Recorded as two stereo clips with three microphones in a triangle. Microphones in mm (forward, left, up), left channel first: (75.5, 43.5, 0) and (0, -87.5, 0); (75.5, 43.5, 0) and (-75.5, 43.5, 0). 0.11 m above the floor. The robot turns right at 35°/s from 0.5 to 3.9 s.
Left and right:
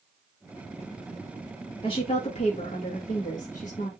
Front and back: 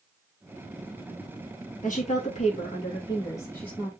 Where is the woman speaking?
10° left, 2 m; by 3.9 s 85° left, 2 m.